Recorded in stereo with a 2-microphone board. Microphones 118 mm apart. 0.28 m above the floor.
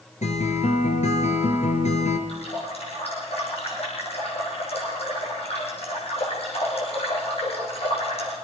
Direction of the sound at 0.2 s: 75° left (ahead or behind).